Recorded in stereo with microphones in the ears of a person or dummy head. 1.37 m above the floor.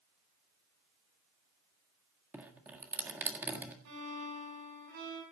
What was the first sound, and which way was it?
Dripping, 10° right (ahead or behind).